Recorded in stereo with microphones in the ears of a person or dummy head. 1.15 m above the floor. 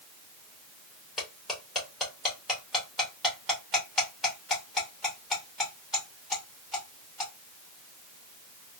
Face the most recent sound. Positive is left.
turn(degrees=-5)  # may be behind; listen again after turning